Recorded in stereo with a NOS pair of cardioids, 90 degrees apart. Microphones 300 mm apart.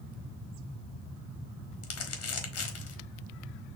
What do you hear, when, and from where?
1.8 s crumpling: 55° left, 1.5 m